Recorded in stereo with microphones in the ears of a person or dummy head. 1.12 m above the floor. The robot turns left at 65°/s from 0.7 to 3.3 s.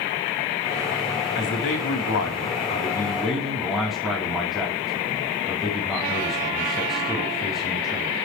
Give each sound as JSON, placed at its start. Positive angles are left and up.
{"t": 1.4, "sound": "a man speaking", "azimuth_deg": 125, "distance_m": 3.0}